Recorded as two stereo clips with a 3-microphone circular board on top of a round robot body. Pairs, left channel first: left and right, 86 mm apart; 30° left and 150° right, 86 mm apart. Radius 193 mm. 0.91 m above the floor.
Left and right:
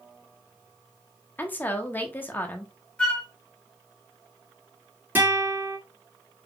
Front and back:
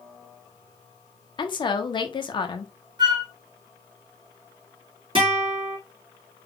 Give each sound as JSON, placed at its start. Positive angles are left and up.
{"t": 1.4, "sound": "a woman speaking", "azimuth_deg": 25, "distance_m": 1.2}
{"t": 3.0, "sound": "a flute", "azimuth_deg": 170, "distance_m": 1.0}
{"t": 5.2, "sound": "a guitar", "azimuth_deg": -160, "distance_m": 2.5}